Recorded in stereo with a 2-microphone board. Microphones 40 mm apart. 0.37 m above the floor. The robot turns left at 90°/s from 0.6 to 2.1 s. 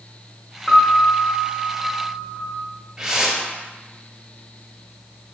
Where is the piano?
20° left (ahead or behind), 0.5 m; by 2.5 s 25° right (ahead or behind), 0.5 m.